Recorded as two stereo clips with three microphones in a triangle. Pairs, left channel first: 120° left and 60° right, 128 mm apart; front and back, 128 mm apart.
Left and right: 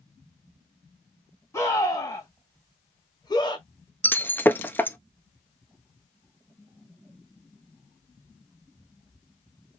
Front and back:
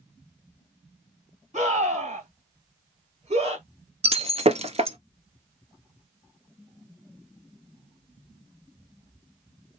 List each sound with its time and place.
1.5 s a scream: 175° right, 3 m; by 3.7 s 165° left, 1.9 m
4.0 s breaking glass: 165° right, 0.5 m